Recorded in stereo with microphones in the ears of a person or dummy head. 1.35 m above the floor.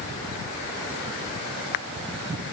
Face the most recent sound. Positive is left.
No sound to turn to.